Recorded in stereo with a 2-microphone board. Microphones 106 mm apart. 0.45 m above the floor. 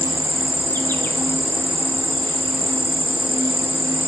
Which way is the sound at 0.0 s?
20° left (ahead or behind).